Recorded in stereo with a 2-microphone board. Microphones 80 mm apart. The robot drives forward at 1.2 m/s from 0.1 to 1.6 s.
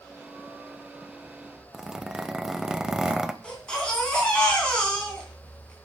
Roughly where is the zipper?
Centre.